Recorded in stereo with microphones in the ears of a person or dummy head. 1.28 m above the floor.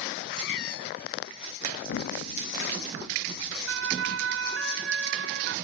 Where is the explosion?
75° left (ahead or behind).